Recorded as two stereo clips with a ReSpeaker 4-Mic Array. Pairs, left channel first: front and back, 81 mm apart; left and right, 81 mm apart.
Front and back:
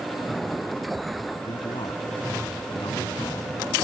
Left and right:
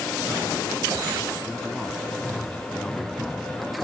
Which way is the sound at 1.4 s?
Straight ahead.